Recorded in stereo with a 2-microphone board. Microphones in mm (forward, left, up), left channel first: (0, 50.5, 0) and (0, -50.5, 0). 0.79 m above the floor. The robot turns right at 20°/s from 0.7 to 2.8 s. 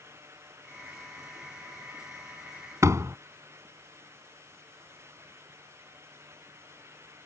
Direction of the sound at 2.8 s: 25° right (ahead or behind).